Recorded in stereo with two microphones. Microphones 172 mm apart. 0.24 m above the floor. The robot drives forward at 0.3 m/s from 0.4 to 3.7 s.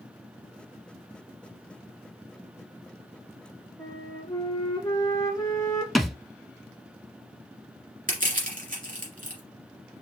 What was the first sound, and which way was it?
A flute, 20° left (ahead or behind).